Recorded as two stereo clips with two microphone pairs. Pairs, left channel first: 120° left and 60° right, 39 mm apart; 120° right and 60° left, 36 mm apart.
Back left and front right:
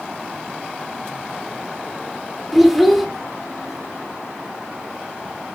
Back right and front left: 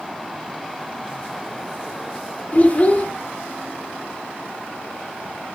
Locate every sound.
2.5 s a child speaking: 150° right, 0.7 m